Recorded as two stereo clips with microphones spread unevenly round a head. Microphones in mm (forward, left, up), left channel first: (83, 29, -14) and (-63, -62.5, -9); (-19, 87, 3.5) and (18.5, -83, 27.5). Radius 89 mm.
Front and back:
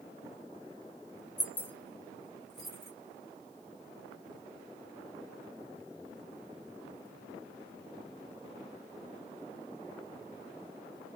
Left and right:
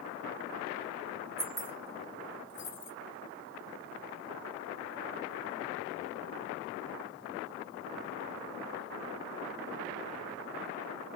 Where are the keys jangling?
40° right, 0.8 m; by 2.9 s 125° left, 1.6 m.